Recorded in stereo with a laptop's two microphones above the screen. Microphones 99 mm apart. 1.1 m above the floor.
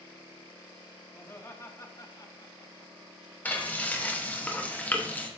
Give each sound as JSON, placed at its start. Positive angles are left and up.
{"t": 1.1, "sound": "laughter", "side_deg": 20, "distance_m": 1.8}
{"t": 3.5, "sound": "frying", "side_deg": 15, "distance_m": 0.9}